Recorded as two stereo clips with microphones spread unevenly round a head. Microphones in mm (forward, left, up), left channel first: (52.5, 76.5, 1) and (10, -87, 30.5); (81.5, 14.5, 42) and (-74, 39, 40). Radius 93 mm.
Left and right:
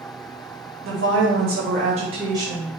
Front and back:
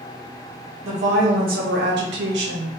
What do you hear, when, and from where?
0.8 s a woman speaking: 135° right, 1.8 m; by 2.7 s 170° left, 1.6 m